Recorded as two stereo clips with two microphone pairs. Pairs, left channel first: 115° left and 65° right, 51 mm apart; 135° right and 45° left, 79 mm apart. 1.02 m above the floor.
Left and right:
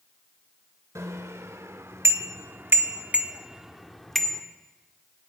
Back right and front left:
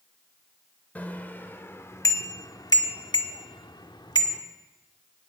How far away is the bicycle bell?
About 2.5 m.